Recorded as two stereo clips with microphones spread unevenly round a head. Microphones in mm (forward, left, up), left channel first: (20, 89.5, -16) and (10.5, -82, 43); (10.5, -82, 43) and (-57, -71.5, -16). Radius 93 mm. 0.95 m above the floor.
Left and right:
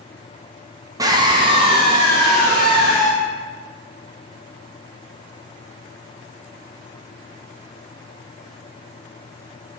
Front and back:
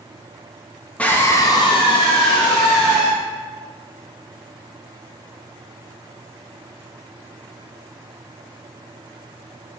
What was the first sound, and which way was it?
A scream, straight behind.